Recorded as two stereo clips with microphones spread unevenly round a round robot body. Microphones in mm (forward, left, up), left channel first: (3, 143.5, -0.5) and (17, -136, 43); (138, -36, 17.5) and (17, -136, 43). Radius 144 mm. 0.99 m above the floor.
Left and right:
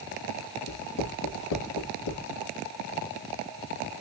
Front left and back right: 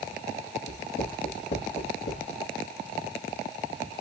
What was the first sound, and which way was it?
Writing, 75° left.